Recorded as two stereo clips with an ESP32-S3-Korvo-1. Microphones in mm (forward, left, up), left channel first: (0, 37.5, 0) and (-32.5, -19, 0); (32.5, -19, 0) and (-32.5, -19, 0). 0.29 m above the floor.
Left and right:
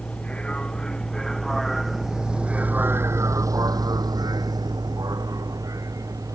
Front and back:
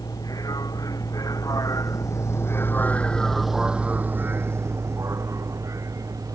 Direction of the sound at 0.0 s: 15° right.